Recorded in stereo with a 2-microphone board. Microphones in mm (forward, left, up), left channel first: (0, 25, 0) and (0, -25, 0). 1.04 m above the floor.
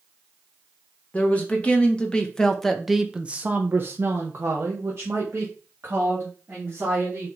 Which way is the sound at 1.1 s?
25° left (ahead or behind).